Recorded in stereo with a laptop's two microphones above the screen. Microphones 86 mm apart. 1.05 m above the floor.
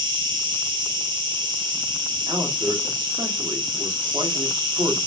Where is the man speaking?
55° right (ahead or behind), 2 m.